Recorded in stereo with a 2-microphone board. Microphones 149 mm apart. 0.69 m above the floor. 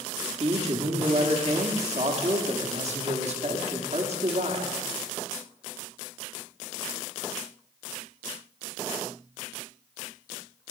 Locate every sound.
0.4 s a man speaking: 50° right (ahead or behind), 1.3 m